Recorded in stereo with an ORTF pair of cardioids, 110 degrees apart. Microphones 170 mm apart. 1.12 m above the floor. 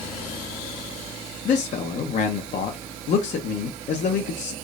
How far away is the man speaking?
About 0.8 m.